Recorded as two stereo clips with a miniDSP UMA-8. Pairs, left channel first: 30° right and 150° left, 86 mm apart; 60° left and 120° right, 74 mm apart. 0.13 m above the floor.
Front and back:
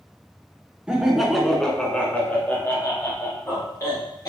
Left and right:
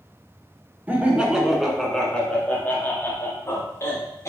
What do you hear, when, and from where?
0.9 s laughter: 145° right, 1.1 m; by 4.3 s 15° left, 1.8 m